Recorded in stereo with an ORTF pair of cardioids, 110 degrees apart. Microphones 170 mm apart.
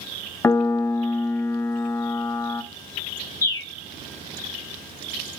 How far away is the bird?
About 1.3 m.